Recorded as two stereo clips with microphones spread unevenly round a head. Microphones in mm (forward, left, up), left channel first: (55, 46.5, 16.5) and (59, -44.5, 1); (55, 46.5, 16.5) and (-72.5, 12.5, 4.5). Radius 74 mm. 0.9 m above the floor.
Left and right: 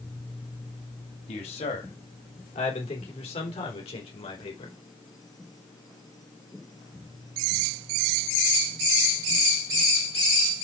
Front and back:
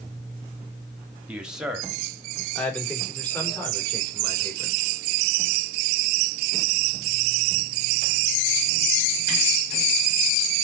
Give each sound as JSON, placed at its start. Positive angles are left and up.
{"t": 1.3, "sound": "a man speaking", "azimuth_deg": 115, "distance_m": 2.5}